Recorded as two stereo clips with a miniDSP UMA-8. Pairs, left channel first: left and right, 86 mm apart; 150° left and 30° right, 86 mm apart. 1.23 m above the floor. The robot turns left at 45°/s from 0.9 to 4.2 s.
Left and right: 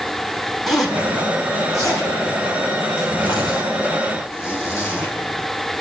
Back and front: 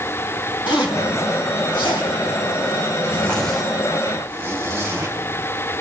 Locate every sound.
0.7 s a zipper: 175° right, 3.5 m; by 5.1 s 35° left, 3.5 m